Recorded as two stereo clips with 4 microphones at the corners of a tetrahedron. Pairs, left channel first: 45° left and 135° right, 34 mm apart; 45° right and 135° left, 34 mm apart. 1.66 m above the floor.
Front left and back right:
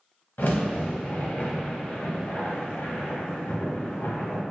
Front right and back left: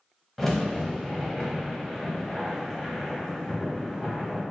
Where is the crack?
40° left, 1.0 m.